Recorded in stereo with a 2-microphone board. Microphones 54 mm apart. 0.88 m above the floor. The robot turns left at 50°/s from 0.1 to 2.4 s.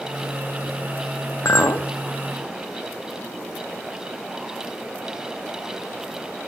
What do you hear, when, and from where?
1.4 s a clink: 65° left (ahead or behind), 0.7 m; by 1.9 s 85° left, 0.7 m